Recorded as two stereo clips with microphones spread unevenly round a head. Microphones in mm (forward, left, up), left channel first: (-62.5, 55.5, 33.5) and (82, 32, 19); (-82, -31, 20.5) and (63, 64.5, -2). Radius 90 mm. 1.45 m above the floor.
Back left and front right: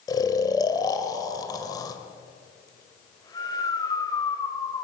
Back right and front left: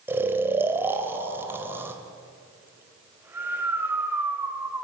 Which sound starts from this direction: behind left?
Snoring, at 0.1 s.